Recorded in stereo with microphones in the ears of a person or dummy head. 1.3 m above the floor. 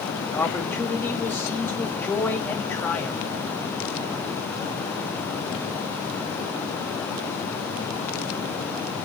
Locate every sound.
0.2 s a man speaking: 15° left (ahead or behind), 2 m